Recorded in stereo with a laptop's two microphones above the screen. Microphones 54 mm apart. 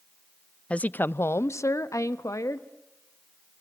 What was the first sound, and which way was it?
A woman speaking, 20° left (ahead or behind).